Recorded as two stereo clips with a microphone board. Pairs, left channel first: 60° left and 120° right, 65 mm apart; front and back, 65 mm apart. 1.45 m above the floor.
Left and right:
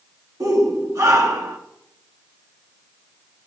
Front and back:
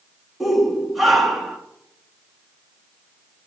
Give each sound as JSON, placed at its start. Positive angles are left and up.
{"t": 0.4, "sound": "a shout", "azimuth_deg": -90, "distance_m": 2.5}